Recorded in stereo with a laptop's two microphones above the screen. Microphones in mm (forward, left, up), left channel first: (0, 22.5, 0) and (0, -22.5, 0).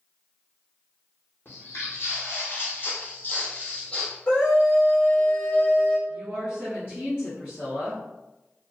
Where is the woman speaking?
65° left (ahead or behind), 1.4 m.